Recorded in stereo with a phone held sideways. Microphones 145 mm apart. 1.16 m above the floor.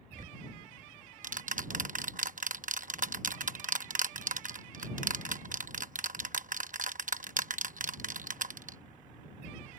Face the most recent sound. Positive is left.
turn(degrees=-65)  # may be behind; listen again after turning